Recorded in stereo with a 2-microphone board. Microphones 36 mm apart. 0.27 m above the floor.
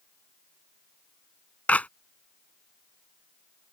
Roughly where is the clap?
Left.